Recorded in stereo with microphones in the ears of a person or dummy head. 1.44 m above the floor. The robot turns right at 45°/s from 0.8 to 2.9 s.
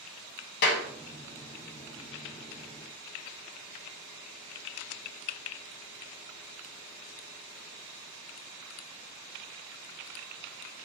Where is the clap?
55° left (ahead or behind), 0.7 m.